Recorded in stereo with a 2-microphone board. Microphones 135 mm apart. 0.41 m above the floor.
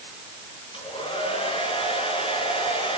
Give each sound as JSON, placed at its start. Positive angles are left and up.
{"t": 0.7, "sound": "a hair dryer", "side_deg": 40, "distance_m": 5.0}